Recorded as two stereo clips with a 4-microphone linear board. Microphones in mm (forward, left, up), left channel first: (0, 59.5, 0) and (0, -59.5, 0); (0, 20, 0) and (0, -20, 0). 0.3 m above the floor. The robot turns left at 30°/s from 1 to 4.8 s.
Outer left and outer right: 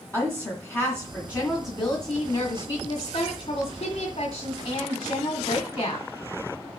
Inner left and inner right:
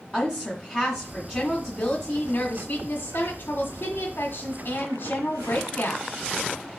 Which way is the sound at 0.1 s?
165° left.